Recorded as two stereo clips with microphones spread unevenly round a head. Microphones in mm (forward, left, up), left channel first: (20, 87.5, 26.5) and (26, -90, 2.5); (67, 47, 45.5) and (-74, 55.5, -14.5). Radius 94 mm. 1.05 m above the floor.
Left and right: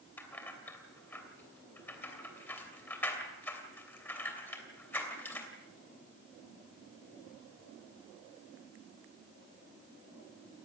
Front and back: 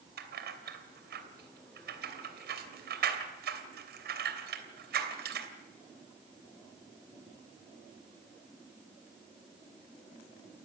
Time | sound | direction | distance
0.2 | keys jangling | 170° left | 3 m